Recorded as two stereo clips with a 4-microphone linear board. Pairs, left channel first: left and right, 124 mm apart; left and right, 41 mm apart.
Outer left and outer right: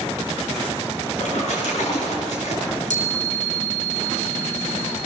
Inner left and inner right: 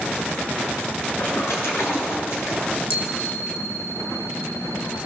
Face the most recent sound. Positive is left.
turn(degrees=70)  # may be behind; listen again after turning